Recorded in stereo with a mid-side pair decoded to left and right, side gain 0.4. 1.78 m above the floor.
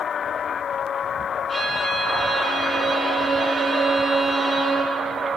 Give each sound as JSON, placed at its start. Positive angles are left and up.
{"t": 1.5, "sound": "a violin", "azimuth_deg": -45, "distance_m": 3.0}